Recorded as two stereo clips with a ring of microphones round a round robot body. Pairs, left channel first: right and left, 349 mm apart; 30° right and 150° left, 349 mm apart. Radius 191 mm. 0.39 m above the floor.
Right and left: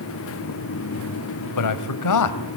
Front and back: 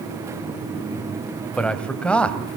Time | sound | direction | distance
1.6 | a man speaking | 115° right | 2 m